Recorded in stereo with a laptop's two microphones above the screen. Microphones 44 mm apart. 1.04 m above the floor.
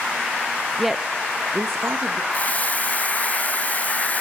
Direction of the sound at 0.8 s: 5° left (ahead or behind).